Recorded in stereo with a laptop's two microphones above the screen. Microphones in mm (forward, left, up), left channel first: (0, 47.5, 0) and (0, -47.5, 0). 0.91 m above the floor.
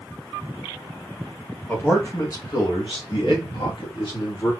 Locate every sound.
1.7 s a man speaking: 15° left (ahead or behind), 1.0 m; by 4.5 s 65° left (ahead or behind), 1.5 m